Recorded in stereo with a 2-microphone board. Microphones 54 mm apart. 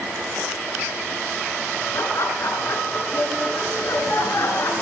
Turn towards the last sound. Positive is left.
turn(degrees=60)  # may be behind; listen again after turning